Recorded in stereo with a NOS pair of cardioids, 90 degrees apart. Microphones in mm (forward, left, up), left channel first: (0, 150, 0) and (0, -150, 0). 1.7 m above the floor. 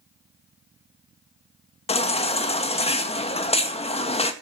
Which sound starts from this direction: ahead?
A baby crying, at 1.9 s.